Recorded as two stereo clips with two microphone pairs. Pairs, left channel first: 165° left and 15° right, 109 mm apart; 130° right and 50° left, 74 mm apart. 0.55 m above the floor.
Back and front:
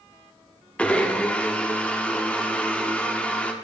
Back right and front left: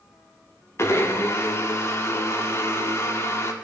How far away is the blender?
About 1.3 m.